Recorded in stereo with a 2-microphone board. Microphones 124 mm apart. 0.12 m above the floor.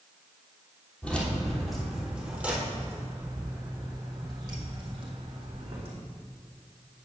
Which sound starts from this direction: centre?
Keys jangling, at 1.0 s.